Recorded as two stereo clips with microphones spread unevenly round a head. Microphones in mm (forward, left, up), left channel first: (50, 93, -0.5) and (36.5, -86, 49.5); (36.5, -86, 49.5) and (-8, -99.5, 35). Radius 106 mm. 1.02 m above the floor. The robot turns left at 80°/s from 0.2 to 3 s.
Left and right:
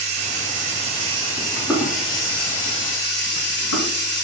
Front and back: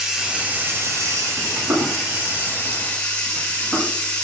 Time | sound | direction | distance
0.0 | running water | 80° right | 1.9 m
1.4 | footsteps | 170° right | 4 m